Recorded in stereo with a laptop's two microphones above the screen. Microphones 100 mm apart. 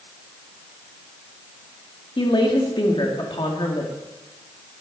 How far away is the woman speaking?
About 2 m.